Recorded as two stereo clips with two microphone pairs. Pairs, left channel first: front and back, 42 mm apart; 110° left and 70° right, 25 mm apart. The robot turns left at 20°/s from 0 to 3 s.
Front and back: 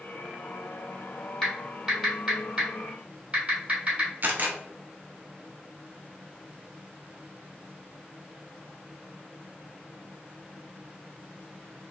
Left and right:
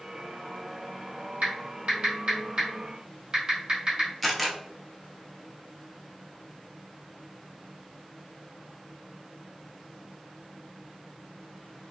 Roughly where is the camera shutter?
Behind.